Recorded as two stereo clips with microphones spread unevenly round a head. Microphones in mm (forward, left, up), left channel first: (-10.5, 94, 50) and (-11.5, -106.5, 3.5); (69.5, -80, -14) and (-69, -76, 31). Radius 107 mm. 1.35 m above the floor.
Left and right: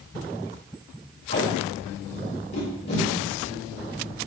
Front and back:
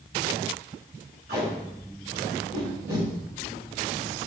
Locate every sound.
1.3 s tape being pulled: 130° left, 3 m